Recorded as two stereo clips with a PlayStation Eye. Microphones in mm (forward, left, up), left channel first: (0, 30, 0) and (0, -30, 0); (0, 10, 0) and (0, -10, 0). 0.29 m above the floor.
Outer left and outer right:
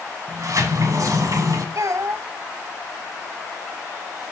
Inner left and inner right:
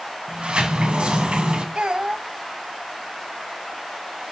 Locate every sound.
0.3 s a sliding door: 60° right (ahead or behind), 1.7 m
1.8 s a child speaking: 55° right (ahead or behind), 0.8 m